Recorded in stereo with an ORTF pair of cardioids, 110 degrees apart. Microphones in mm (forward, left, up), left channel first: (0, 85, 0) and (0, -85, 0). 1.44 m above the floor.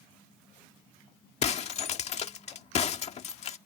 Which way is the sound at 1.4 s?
40° left.